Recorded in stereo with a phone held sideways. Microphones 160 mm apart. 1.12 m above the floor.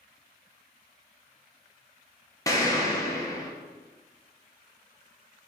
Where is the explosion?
20° left (ahead or behind), 0.6 m.